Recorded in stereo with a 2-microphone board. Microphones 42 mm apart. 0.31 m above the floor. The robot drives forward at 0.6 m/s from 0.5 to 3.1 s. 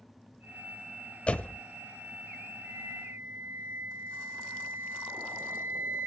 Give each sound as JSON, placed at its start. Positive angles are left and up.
{"t": 1.3, "sound": "a door slam", "side_deg": 30, "distance_m": 0.7}
{"t": 2.6, "sound": "a flute", "side_deg": -70, "distance_m": 3.0}